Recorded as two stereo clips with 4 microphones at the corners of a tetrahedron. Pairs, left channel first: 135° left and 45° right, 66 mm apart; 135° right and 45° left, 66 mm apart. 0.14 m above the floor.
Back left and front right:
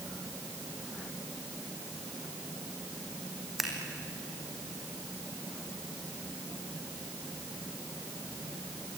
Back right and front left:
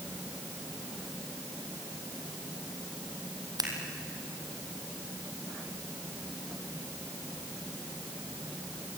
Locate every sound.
3.6 s scissors: 45° left, 4 m